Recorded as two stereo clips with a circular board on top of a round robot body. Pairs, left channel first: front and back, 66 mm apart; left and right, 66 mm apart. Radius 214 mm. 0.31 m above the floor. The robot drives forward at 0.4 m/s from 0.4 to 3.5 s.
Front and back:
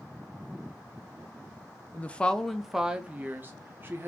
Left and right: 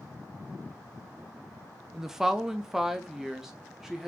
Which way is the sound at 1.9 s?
15° right.